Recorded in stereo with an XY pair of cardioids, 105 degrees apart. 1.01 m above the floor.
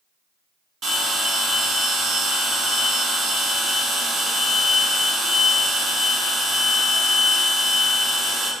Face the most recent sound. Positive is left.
turn(degrees=-65)